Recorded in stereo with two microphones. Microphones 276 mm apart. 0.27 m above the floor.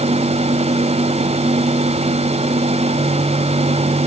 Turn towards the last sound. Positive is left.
No sound to turn to.